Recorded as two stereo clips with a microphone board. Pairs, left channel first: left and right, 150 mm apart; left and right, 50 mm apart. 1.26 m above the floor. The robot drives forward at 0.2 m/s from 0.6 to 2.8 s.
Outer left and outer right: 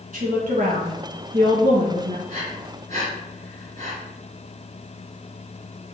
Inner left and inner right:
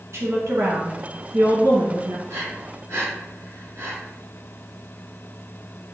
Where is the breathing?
50° right (ahead or behind), 1.9 m; by 4.0 s 45° right (ahead or behind), 2.0 m.